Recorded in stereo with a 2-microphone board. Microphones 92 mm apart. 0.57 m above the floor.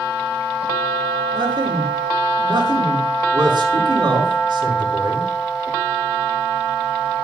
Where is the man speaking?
55° right (ahead or behind), 6 m.